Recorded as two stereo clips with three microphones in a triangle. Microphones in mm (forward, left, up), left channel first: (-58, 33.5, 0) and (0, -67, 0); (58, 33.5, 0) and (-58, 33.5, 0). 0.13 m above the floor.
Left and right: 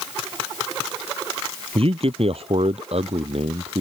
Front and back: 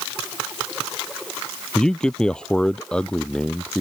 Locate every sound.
1.8 s a man speaking: 85° right; by 3.8 s 80° right